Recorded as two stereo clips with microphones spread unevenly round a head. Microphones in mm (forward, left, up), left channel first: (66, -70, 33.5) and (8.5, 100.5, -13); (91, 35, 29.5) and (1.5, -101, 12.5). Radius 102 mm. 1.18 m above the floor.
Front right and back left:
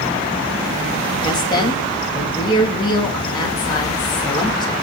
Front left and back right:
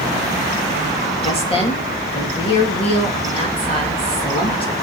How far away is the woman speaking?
About 2 m.